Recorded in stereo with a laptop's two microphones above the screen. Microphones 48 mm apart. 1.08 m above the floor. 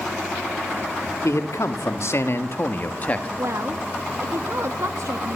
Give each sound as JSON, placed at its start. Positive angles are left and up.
{"t": 1.2, "sound": "a man speaking", "side_deg": 80, "distance_m": 3.0}
{"t": 3.4, "sound": "a woman speaking", "side_deg": -70, "distance_m": 1.5}